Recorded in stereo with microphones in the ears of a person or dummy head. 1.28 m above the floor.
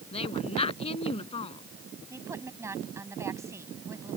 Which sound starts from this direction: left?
A woman speaking, at 0.1 s.